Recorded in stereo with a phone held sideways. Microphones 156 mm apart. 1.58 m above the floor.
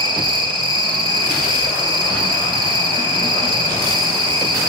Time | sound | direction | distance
0.0 | an insect | 30° right (ahead or behind) | 3 m